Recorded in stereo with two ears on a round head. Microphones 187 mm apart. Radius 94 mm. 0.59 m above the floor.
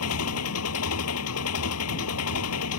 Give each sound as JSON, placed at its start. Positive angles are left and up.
{"t": 0.0, "sound": "an engine running", "side_deg": 85}